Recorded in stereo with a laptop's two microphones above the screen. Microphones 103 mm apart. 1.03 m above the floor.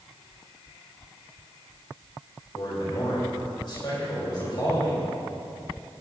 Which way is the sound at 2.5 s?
50° left (ahead or behind).